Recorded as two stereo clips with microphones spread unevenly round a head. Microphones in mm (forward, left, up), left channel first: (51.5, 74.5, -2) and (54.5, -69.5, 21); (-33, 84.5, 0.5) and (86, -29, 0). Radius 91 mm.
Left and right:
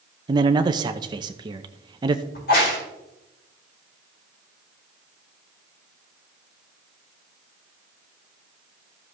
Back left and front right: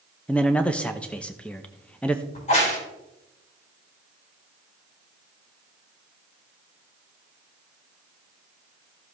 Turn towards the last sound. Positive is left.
turn(degrees=90)